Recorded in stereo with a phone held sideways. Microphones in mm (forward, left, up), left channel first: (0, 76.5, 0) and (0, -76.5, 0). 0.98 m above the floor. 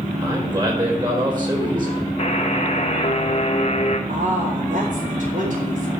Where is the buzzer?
45° left (ahead or behind), 1.4 m.